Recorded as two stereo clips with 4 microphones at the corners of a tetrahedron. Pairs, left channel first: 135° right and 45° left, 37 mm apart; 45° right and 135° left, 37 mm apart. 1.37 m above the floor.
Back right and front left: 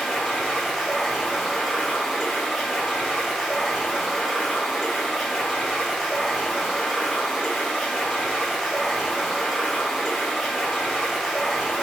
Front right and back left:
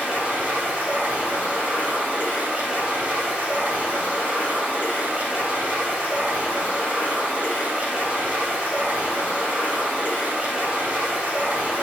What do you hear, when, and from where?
0.0 s running water: 135° left, 2 m